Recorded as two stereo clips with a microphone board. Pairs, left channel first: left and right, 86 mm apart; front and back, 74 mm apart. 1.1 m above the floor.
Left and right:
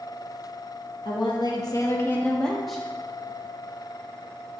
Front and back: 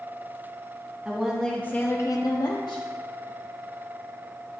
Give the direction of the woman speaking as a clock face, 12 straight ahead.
8 o'clock.